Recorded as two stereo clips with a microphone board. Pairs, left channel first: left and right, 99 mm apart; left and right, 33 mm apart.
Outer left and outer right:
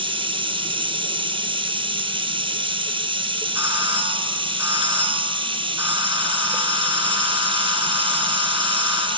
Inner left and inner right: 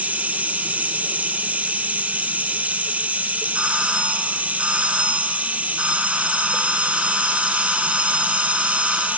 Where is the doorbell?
30° right (ahead or behind), 3.5 m.